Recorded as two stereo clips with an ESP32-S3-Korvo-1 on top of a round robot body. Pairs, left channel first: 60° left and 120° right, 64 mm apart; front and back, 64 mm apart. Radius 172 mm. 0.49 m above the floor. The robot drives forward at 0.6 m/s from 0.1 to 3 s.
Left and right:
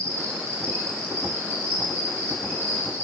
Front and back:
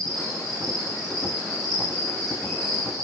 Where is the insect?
165° right, 6 m.